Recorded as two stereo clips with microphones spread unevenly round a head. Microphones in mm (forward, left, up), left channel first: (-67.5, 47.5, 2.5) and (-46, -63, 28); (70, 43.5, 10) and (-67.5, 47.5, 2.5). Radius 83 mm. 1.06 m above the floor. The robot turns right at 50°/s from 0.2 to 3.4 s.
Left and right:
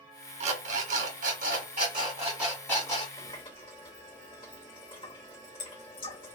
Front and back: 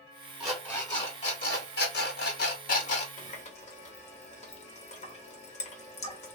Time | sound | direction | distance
0.4 | an alarm clock | 95° right | 1.3 m
3.2 | a running tap | 25° left | 0.9 m